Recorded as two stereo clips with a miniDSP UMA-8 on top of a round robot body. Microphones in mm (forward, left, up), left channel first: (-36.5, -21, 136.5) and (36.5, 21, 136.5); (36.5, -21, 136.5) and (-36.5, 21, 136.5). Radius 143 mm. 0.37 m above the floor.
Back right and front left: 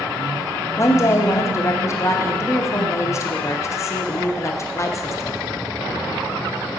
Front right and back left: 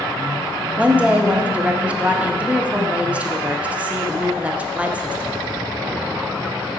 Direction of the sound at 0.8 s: 150° right.